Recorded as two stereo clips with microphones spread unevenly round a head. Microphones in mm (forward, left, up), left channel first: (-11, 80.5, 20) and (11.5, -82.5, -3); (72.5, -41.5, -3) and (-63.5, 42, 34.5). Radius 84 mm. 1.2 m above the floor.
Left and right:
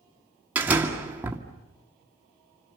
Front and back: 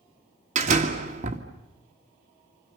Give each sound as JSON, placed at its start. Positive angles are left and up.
{"t": 0.6, "sound": "a door slam", "azimuth_deg": -165, "distance_m": 1.9}